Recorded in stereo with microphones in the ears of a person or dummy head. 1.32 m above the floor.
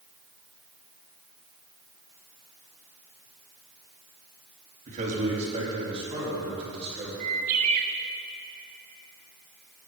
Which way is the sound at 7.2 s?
45° right (ahead or behind).